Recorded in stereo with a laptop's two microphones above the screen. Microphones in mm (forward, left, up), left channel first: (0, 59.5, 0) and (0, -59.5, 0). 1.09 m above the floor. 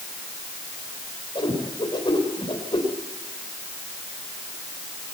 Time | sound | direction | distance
1.4 | a whoosh | 45° left (ahead or behind) | 3.5 m